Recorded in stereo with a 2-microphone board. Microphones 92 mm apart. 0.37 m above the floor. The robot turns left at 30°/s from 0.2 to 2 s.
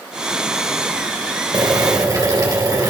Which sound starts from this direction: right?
Boiling, at 1.5 s.